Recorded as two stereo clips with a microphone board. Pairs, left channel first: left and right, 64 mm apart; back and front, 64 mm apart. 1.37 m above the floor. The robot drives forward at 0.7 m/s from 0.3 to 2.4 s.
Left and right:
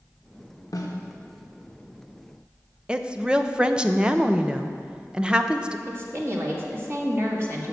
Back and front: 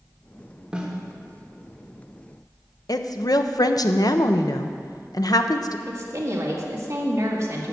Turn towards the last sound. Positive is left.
turn(degrees=-45)